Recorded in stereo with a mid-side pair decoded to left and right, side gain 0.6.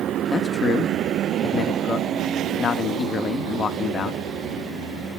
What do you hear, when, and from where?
0.3 s a man speaking: 35° left, 1.8 m